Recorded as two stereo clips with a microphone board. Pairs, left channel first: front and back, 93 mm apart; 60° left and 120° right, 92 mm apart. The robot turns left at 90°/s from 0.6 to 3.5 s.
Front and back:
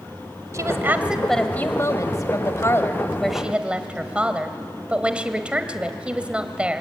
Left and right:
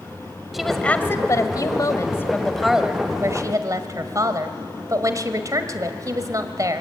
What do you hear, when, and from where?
0.5 s a woman speaking: 150° left, 1.7 m; by 6.8 s 110° right, 1.7 m